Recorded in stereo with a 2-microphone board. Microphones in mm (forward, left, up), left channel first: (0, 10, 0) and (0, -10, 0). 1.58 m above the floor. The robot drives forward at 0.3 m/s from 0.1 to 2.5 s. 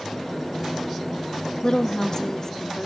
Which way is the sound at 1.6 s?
35° left (ahead or behind).